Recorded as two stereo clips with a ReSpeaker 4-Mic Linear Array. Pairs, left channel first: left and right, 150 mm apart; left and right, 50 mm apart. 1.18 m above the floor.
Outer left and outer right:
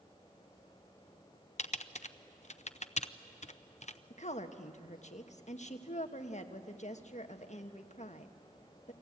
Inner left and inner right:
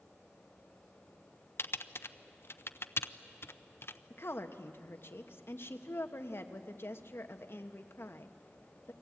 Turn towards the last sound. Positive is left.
turn(degrees=55)  # may be behind; listen again after turning